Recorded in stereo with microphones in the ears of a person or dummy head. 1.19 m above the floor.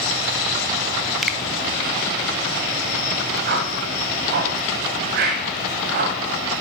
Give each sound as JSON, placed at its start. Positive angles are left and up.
{"t": 1.2, "sound": "a finger snap", "side_deg": 0, "distance_m": 0.6}
{"t": 3.5, "sound": "a whoosh", "side_deg": -55, "distance_m": 1.5}